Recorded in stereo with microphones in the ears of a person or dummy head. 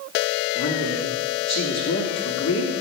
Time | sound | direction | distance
0.6 | a woman speaking | 70° left (ahead or behind) | 2.5 m